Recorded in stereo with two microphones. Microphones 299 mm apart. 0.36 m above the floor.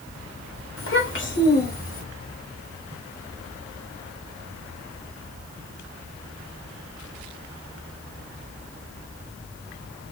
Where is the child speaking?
45° left (ahead or behind), 1.1 m; by 2.0 s 25° left (ahead or behind), 1.6 m.